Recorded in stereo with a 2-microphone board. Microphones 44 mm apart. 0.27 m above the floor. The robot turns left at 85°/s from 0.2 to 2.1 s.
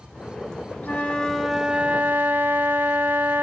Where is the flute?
50° left, 0.6 m; by 3.4 s 60° right, 0.6 m.